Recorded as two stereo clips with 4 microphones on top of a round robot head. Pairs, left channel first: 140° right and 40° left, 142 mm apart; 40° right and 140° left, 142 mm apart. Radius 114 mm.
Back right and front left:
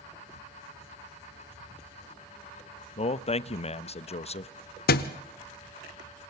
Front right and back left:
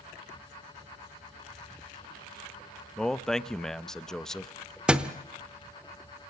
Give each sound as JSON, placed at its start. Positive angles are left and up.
{"t": 3.0, "sound": "a man speaking", "azimuth_deg": -125, "distance_m": 0.9}
{"t": 4.9, "sound": "a thud", "azimuth_deg": -135, "distance_m": 1.0}